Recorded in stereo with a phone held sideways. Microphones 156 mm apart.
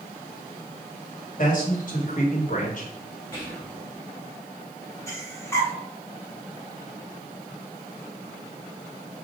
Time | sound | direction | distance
1.4 | a man speaking | 55° left (ahead or behind) | 1.5 m
3.3 | whispering | 15° left (ahead or behind) | 2.5 m
5.1 | breathing | 15° left (ahead or behind) | 1.4 m